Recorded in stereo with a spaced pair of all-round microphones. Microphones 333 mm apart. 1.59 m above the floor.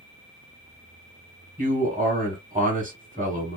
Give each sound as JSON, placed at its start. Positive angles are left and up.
{"t": 1.6, "sound": "a man speaking", "side_deg": -25, "distance_m": 1.2}